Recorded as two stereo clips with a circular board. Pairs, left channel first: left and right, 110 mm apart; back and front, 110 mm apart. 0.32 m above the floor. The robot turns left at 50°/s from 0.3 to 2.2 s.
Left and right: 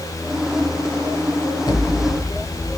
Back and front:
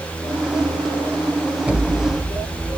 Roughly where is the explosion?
Left.